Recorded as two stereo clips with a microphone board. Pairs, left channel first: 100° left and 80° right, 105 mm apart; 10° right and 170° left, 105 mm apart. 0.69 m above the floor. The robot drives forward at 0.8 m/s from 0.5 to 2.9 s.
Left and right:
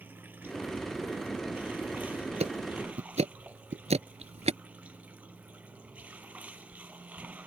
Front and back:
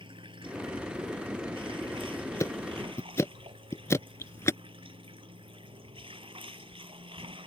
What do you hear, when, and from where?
0.0 s running water: 150° right; by 7.5 s 155° right
2.4 s ticking: 70° right; by 4.6 s 75° right